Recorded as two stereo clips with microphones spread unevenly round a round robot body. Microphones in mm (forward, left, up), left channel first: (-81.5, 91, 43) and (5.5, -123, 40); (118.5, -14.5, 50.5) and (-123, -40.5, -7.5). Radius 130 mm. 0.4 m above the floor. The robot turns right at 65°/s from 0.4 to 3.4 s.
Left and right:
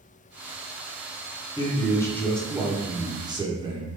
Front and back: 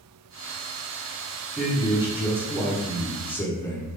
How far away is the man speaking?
About 0.8 m.